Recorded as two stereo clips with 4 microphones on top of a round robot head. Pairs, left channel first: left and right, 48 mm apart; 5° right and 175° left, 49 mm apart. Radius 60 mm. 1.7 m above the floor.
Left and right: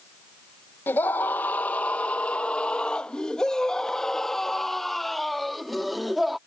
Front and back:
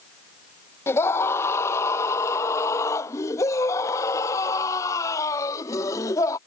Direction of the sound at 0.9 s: 30° left.